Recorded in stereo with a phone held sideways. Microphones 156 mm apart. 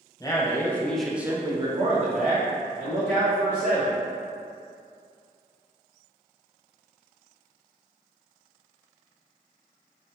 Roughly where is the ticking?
No ticking in this recording.